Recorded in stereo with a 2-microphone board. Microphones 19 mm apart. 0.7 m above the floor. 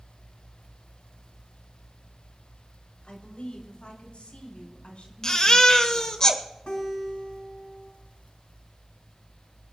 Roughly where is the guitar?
Left.